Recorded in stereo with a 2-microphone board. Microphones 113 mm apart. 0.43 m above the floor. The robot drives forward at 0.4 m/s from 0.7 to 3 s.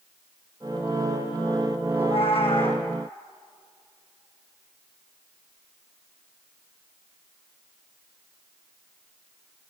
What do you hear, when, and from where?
1.9 s a cat meowing: 60° left (ahead or behind), 3 m; by 2.9 s 55° left (ahead or behind), 3 m